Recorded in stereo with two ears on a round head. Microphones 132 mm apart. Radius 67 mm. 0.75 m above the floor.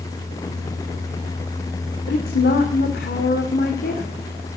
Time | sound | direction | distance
2.1 | a woman speaking | 75° left (ahead or behind) | 2 m